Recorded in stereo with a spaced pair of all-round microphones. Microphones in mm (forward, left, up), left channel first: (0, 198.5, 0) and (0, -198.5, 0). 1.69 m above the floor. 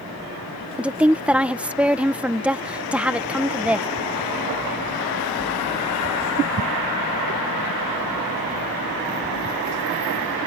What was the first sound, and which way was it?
A woman speaking, 5° right (ahead or behind).